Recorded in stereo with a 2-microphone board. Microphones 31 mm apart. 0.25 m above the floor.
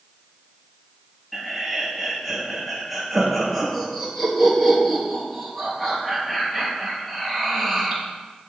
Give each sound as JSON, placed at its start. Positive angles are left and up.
{"t": 1.3, "sound": "laughter", "side_deg": 5, "distance_m": 3.5}